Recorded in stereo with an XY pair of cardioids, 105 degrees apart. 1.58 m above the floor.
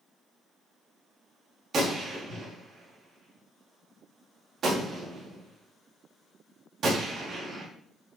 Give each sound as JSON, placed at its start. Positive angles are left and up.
{"t": 1.7, "sound": "a gunshot", "azimuth_deg": -45, "distance_m": 4.0}